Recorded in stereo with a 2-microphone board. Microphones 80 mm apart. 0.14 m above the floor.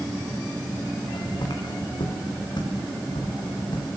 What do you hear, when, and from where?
1.0 s footsteps: 70° left (ahead or behind), 4 m; by 3.9 s 85° left, 5 m